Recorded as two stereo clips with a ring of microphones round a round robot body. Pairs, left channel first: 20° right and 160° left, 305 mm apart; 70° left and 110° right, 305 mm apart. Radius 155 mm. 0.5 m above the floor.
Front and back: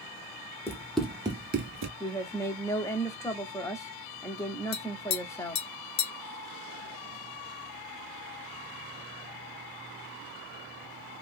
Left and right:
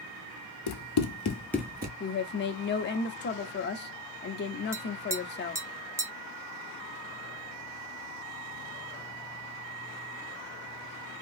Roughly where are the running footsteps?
Ahead left.